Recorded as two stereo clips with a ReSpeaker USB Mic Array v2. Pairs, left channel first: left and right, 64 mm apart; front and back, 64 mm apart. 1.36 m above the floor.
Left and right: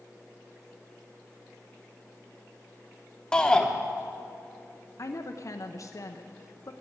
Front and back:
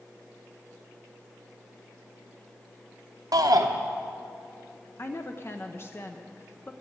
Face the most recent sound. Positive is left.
turn(degrees=50)